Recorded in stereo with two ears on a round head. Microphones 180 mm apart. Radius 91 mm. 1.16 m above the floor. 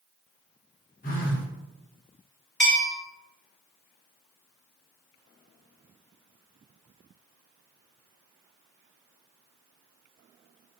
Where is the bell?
Centre (ahead or behind), 1.0 m.